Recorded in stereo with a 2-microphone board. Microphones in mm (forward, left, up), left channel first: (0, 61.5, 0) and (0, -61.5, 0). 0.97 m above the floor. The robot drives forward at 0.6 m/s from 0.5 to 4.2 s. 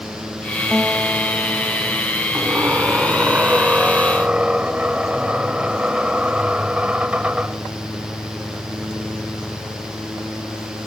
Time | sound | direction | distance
0.7 | a guitar | 5° left (ahead or behind) | ?
2.3 | a squeak | 20° right (ahead or behind) | ?